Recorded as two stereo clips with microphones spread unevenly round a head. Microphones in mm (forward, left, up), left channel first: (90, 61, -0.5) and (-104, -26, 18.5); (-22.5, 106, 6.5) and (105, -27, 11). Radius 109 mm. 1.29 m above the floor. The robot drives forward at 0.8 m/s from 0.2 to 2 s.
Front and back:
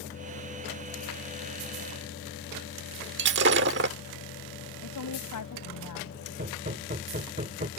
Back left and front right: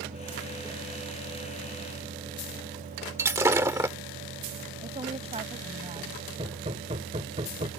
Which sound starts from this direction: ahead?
A woman speaking, at 4.8 s.